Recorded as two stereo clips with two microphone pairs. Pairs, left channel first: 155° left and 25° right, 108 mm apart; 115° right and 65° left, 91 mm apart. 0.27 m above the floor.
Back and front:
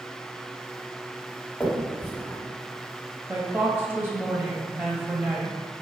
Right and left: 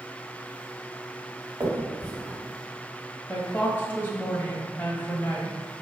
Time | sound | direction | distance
1.6 | a finger snap | 90° left | 1.3 m
3.3 | a woman speaking | 70° right | 1.2 m